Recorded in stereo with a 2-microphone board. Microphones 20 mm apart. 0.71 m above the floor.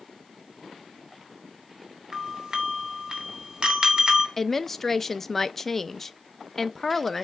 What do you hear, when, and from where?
2.1 s a doorbell: 40° right (ahead or behind), 3 m
4.4 s a woman speaking: 20° left (ahead or behind), 0.5 m